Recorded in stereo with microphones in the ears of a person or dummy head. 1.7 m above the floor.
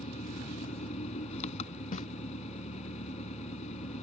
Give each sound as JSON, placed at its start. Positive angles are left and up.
{"t": 0.0, "sound": "an engine running", "side_deg": 40}
{"t": 1.9, "sound": "a snare drum", "side_deg": 45}